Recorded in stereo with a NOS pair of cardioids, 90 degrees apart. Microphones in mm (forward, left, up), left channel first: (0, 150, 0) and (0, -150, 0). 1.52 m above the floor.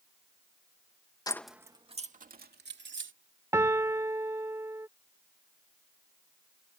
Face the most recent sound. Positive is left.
turn(degrees=-10)